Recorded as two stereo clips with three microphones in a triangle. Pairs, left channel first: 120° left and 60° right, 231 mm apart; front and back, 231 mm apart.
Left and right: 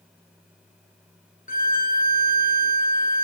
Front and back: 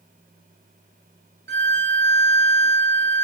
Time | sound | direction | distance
1.5 | a violin | 160° left | 0.5 m